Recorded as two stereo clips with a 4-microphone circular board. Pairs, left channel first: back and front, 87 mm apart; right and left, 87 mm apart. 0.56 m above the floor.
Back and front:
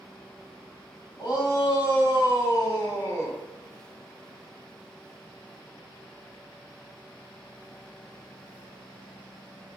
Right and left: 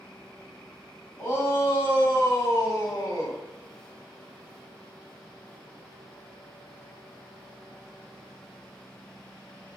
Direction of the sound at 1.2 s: 140° right.